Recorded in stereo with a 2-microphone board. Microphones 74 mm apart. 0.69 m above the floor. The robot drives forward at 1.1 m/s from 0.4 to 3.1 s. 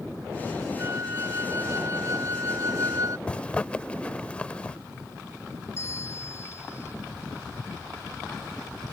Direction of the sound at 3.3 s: 15° left (ahead or behind).